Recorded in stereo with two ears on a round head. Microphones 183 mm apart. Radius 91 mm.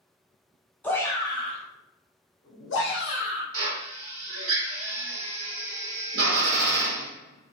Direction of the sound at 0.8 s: 10° left (ahead or behind).